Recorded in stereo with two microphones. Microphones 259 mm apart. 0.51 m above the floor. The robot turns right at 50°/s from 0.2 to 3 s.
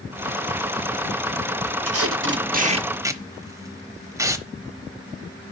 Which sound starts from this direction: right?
Tape being pulled, at 1.9 s.